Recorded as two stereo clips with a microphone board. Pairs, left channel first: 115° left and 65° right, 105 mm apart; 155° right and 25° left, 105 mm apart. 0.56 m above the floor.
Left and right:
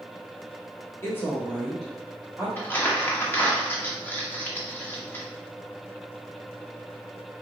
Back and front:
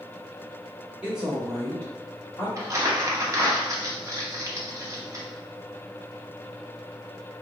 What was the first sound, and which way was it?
A woman speaking, 85° left.